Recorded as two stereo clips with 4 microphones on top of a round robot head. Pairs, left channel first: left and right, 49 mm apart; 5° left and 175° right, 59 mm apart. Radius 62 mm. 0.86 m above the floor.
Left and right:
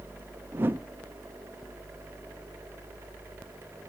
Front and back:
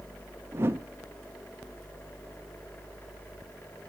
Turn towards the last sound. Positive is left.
turn(degrees=-130)